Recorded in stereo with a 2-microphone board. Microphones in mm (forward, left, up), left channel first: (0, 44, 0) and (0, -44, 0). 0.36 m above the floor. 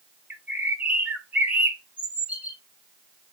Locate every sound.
0.3 s a bird: 15° right (ahead or behind), 0.8 m